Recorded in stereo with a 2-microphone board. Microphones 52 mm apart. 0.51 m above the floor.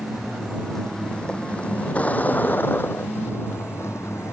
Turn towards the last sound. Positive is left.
turn(degrees=65)  # may be behind; listen again after turning